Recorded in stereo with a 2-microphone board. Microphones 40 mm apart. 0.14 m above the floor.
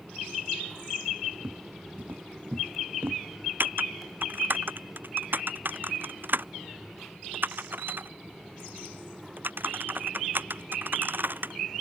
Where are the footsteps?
60° right (ahead or behind); by 3.2 s 75° right (ahead or behind).